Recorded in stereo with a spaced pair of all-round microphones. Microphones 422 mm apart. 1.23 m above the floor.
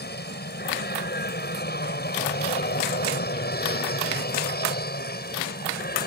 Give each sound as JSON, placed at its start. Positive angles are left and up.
{"t": 0.0, "sound": "an aircraft", "side_deg": 20}